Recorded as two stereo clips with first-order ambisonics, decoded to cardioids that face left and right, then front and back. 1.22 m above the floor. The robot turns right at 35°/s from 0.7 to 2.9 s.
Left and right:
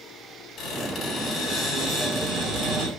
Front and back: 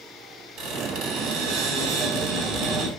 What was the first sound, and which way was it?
A squeak, 145° left.